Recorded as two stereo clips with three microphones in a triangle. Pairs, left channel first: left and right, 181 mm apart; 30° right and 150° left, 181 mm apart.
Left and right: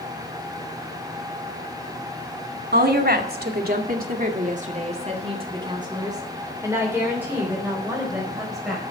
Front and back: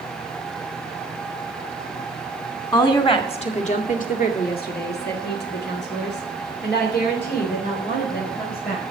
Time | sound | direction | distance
2.7 | a woman speaking | 95° right | 2 m